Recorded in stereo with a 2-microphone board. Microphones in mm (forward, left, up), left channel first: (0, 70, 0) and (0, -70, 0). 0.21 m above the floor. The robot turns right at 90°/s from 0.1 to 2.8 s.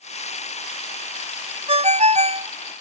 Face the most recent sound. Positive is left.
turn(degrees=-20)